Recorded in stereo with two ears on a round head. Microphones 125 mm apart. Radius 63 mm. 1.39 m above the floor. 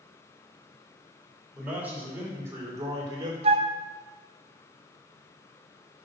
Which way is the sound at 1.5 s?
10° right (ahead or behind).